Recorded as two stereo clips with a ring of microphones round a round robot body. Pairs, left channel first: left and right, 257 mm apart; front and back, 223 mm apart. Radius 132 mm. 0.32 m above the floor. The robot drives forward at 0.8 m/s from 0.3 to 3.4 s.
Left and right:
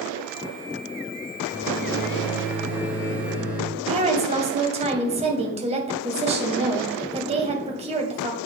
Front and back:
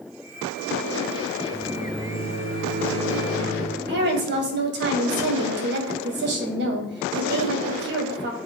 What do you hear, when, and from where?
1.5 s a microwave: 170° right, 4.5 m; by 3.7 s 175° right, 6 m
3.8 s a woman speaking: 150° right, 2 m